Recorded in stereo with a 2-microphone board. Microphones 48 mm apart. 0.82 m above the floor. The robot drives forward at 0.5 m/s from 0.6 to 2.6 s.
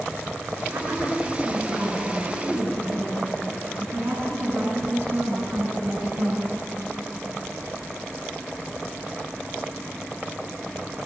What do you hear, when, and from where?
0.7 s a woman speaking: 50° right (ahead or behind), 8.5 m; by 6.5 s 45° right (ahead or behind), 9 m